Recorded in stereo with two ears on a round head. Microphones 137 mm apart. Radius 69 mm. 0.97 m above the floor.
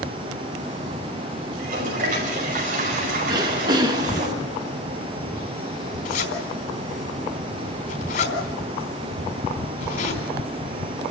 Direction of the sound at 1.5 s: 55° right (ahead or behind).